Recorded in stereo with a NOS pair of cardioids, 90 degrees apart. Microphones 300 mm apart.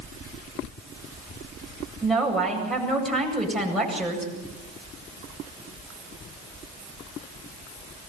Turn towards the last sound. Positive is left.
turn(degrees=0)